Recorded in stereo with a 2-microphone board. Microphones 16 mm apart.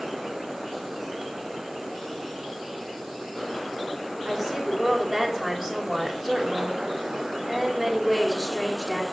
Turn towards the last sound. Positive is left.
turn(degrees=10)  # may be behind; listen again after turning